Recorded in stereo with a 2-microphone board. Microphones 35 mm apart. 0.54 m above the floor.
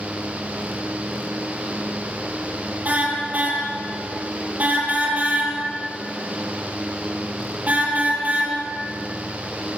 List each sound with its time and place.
2.9 s a car horn: 45° right (ahead or behind), 7 m